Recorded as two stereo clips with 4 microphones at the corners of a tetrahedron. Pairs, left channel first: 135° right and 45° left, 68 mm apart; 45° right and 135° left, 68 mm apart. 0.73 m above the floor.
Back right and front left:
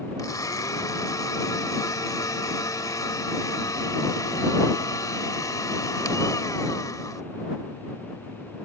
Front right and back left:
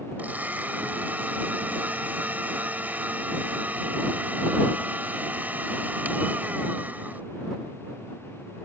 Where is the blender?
165° right.